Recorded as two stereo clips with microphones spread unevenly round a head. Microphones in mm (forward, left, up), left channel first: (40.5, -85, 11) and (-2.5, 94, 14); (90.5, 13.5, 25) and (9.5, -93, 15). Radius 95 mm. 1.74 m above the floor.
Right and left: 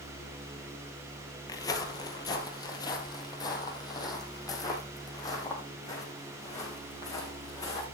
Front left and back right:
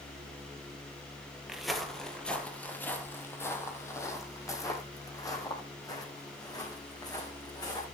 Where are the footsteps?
35° right, 1.8 m; by 7.8 s 5° right, 5.5 m.